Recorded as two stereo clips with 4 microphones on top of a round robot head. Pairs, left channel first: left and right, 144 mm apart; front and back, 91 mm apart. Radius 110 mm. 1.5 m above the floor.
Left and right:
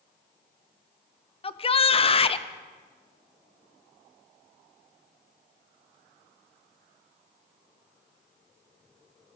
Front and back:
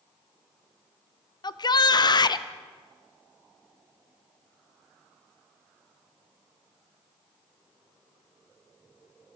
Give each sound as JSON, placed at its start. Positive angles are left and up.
{"t": 1.4, "sound": "a shout", "azimuth_deg": 40, "distance_m": 0.9}